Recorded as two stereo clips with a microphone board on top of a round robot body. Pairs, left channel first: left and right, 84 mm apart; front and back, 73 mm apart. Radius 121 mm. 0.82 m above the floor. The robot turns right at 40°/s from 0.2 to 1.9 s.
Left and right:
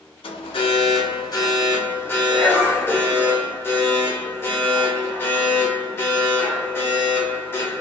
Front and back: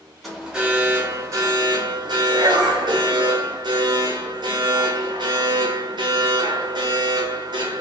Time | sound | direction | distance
0.2 | an alarm | 90° left | 0.7 m